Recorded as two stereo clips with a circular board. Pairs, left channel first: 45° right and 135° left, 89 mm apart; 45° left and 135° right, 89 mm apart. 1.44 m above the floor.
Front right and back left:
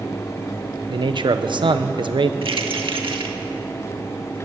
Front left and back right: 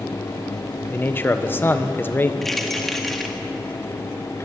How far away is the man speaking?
About 1.2 m.